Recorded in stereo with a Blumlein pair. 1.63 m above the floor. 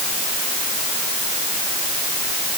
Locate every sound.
Only background noise.